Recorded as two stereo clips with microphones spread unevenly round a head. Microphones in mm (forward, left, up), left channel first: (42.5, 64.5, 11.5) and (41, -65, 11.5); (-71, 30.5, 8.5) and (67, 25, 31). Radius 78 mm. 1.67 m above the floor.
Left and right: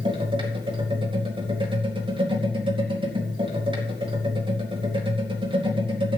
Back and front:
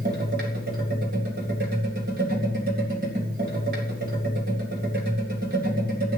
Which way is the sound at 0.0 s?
40° right.